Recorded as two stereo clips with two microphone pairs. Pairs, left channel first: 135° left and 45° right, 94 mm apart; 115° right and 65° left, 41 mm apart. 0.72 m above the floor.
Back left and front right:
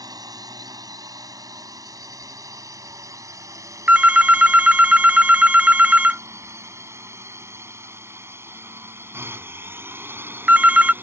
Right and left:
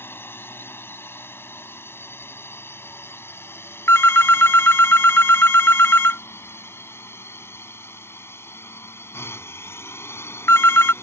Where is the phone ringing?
125° right.